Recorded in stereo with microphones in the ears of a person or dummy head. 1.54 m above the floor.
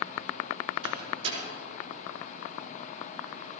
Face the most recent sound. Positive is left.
turn(degrees=-30)  # may be behind; listen again after turning